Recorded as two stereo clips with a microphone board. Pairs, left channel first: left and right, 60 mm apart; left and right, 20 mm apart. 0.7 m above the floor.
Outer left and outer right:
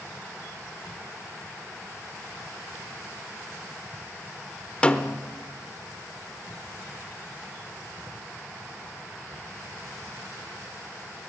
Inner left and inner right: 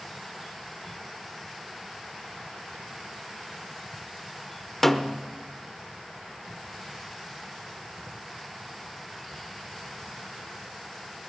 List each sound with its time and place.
4.8 s a snare drum: 15° left (ahead or behind), 0.9 m